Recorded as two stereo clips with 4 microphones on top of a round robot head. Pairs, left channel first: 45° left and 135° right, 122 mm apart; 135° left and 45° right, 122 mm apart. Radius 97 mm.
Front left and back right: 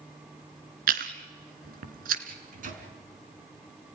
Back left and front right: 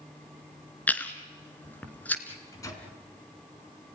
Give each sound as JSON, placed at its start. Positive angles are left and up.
{"t": 0.9, "sound": "chewing", "azimuth_deg": -145, "distance_m": 1.9}
{"t": 2.3, "sound": "a microwave", "azimuth_deg": -155, "distance_m": 4.0}